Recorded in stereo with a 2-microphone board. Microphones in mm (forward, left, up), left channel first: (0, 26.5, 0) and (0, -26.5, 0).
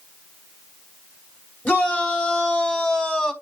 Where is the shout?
30° left (ahead or behind), 4 m; by 3.3 s 20° left (ahead or behind), 3 m.